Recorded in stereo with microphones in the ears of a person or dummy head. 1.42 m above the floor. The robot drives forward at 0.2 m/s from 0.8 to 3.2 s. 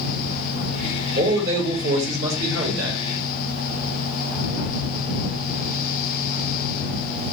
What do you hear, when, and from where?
1.2 s a man speaking: 65° right (ahead or behind), 1.9 m; by 3.0 s 75° right (ahead or behind), 1.8 m